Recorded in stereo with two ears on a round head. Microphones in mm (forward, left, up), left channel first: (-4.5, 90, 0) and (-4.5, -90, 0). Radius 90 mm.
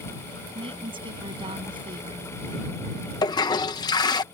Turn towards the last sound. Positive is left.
turn(degrees=20)  # may be behind; listen again after turning